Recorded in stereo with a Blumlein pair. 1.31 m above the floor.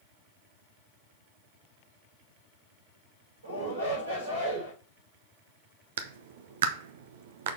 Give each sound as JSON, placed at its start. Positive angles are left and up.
{"t": 3.4, "sound": "a shout", "azimuth_deg": -65, "distance_m": 5.0}
{"t": 6.0, "sound": "a clap", "azimuth_deg": -60, "distance_m": 1.0}